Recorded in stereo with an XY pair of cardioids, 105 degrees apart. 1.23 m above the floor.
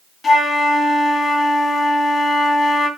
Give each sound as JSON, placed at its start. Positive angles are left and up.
{"t": 0.2, "sound": "a flute", "azimuth_deg": 40, "distance_m": 3.0}